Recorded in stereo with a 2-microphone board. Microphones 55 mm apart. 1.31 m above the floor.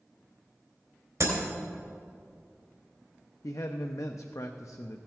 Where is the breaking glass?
70° right (ahead or behind), 2.5 m.